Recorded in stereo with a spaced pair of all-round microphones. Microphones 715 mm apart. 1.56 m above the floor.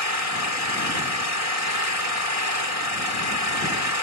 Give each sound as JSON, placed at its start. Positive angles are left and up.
{"t": 0.0, "sound": "an engine running", "side_deg": 50}